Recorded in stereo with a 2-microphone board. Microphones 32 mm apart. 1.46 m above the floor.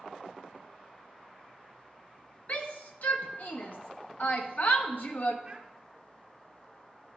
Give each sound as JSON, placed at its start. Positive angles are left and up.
{"t": 2.5, "sound": "a shout", "side_deg": 65, "distance_m": 1.0}
{"t": 5.5, "sound": "a child speaking", "side_deg": -30, "distance_m": 0.7}